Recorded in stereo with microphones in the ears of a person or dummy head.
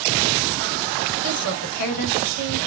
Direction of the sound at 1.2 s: 55° left (ahead or behind).